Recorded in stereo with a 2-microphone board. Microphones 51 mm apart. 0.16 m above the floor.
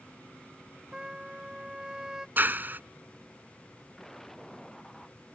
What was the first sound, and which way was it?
A trumpet, 15° right (ahead or behind).